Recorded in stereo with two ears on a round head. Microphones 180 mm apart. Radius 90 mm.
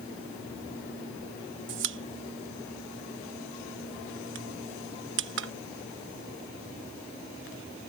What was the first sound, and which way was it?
A pop, 65° right (ahead or behind).